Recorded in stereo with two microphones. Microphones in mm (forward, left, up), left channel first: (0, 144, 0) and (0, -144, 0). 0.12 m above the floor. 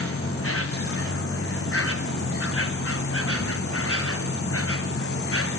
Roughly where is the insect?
Left.